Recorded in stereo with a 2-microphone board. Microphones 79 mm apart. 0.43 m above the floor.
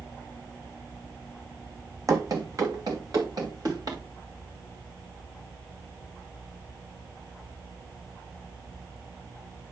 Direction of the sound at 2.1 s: 45° right (ahead or behind).